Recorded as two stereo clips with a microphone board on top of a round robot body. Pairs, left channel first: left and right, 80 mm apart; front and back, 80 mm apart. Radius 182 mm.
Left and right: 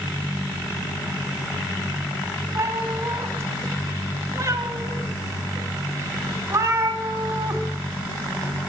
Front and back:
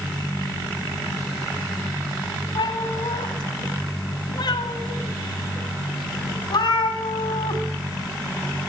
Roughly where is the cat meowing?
Ahead right.